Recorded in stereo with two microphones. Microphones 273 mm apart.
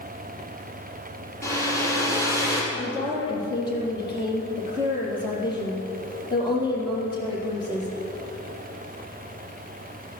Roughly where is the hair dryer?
Centre.